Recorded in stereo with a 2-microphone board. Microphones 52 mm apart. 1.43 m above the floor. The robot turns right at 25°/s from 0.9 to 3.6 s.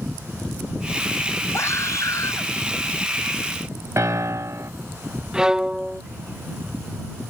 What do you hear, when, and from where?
1.5 s a scream: 60° left (ahead or behind); by 2.5 s 85° left
4.0 s a piano: 65° right (ahead or behind)
5.3 s a violin: 15° right (ahead or behind)